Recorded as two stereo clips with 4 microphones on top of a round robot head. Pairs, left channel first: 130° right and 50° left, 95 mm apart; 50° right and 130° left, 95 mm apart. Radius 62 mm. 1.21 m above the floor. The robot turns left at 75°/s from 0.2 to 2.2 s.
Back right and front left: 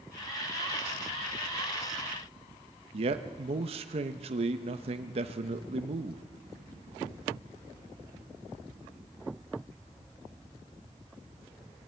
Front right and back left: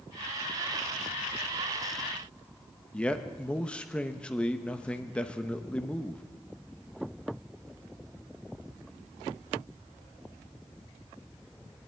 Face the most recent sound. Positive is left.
turn(degrees=25)